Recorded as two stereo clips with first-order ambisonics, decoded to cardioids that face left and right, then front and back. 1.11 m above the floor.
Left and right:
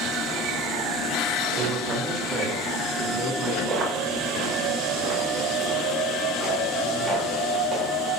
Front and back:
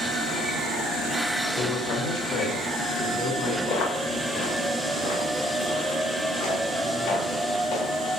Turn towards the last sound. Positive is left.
turn(degrees=-20)